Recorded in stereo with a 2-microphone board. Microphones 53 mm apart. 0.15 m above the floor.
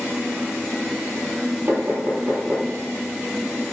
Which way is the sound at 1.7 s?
65° right (ahead or behind).